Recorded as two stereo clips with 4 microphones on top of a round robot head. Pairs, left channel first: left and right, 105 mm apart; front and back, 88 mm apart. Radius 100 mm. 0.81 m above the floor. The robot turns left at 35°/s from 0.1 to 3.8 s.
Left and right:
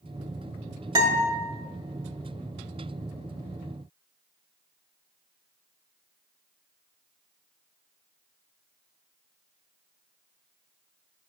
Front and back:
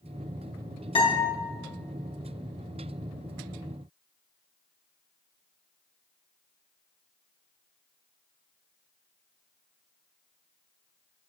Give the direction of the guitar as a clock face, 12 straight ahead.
1 o'clock.